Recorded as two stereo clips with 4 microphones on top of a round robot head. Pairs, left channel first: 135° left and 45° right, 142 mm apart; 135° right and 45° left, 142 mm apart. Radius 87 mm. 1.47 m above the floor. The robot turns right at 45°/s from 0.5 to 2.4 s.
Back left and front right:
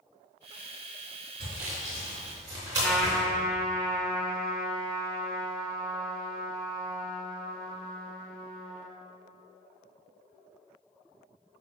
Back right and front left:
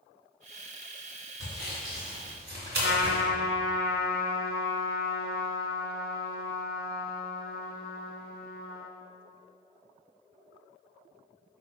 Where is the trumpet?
140° right, 0.6 m.